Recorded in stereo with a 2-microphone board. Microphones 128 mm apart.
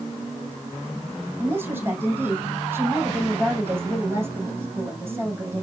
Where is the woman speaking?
15° right (ahead or behind), 5 m.